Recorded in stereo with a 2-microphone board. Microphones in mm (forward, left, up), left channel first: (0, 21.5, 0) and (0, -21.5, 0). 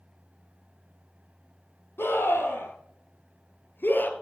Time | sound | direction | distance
2.0 | a scream | 70° left (ahead or behind) | 4.5 m